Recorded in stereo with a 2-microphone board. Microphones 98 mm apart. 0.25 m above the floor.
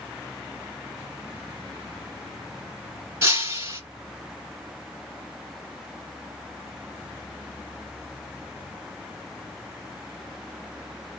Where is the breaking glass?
30° right (ahead or behind), 1.5 m.